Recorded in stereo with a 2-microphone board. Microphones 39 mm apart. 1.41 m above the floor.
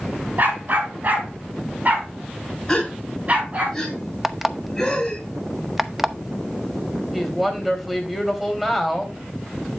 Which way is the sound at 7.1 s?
5° right (ahead or behind).